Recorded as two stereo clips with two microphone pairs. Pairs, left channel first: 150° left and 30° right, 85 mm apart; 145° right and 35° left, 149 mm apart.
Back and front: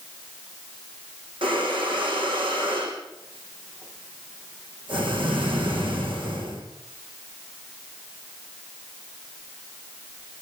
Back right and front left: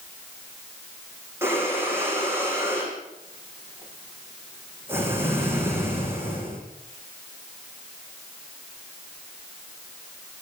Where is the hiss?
No hiss in this recording.